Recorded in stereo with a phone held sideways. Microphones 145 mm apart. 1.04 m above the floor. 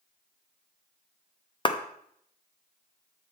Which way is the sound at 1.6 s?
30° left (ahead or behind).